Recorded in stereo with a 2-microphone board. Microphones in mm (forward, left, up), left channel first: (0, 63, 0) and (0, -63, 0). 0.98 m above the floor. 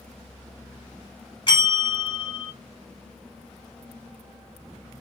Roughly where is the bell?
Left.